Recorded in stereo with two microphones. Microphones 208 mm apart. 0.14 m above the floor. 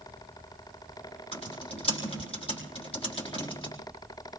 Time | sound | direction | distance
1.3 | typing on a keyboard | 30° left (ahead or behind) | 4 m